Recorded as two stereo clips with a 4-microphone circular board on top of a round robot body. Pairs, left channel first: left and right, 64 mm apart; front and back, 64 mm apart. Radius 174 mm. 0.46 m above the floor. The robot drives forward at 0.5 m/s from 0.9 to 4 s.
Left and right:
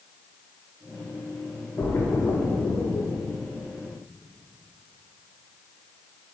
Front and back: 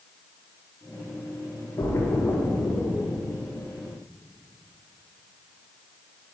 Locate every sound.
1.8 s a splash: 40° left, 1.1 m; by 3.2 s 85° left, 0.7 m